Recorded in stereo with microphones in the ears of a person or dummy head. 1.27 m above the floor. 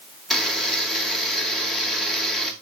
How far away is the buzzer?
About 1.9 m.